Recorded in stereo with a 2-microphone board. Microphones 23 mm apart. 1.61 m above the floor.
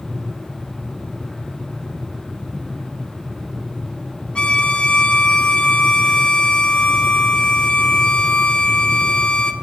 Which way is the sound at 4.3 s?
45° left (ahead or behind).